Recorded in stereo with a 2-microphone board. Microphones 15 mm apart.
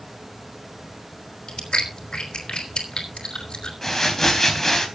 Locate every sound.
1.5 s chewing: 60° left (ahead or behind), 3.5 m
3.8 s crumpling: 30° left (ahead or behind), 3.5 m